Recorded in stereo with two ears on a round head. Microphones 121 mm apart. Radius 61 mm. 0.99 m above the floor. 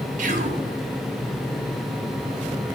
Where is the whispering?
65° right (ahead or behind), 2.5 m.